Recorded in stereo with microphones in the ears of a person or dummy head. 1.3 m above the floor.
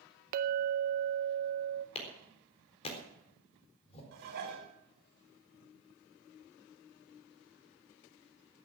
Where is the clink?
50° right (ahead or behind), 0.8 m.